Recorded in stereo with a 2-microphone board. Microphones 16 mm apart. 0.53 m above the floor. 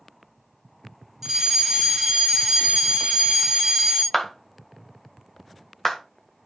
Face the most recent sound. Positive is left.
turn(degrees=15)  # may be behind; listen again after turning